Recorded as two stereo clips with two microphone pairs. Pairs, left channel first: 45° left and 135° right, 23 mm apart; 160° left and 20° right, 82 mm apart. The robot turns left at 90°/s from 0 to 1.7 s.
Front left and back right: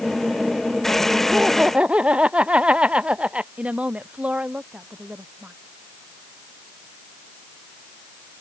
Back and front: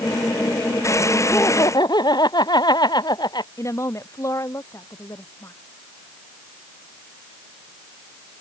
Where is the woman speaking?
145° right.